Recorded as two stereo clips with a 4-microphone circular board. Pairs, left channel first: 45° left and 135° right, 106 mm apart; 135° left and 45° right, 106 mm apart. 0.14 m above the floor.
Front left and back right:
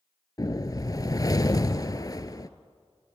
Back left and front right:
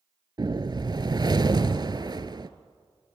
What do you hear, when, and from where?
0.4 s a whoosh: 5° right, 0.9 m